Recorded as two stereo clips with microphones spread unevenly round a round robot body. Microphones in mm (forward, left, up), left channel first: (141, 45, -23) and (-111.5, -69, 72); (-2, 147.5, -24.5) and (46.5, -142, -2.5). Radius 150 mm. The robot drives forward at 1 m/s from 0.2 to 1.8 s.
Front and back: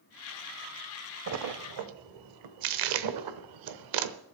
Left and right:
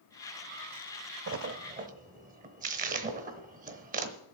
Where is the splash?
110° right, 0.7 m; by 4.2 s 145° right, 1.0 m.